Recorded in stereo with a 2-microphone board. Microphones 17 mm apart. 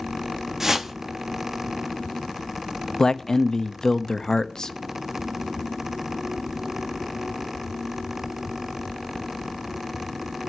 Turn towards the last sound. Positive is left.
turn(degrees=35)  # may be behind; listen again after turning